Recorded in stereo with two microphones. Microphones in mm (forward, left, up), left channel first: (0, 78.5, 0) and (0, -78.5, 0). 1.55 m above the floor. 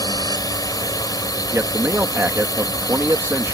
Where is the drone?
25° left (ahead or behind).